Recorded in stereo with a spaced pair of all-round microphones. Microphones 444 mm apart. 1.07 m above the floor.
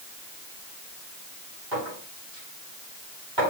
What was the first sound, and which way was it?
A clink, 70° right (ahead or behind).